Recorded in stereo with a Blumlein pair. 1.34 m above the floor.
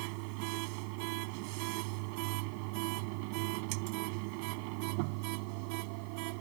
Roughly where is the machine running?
Ahead right.